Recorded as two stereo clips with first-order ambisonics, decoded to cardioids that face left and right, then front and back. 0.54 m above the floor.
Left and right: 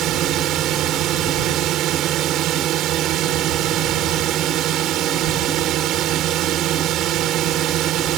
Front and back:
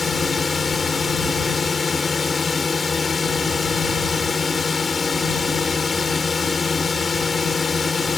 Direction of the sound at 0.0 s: 70° right.